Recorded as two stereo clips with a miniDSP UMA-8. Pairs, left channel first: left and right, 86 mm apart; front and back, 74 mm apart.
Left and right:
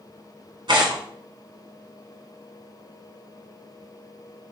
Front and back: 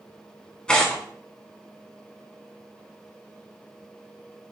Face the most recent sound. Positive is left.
turn(degrees=-75)